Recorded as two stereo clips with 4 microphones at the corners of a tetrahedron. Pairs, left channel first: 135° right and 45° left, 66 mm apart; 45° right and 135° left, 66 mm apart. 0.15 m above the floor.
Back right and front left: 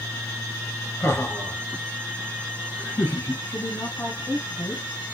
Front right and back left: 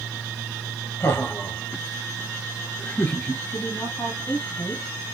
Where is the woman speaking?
90° right, 3 m.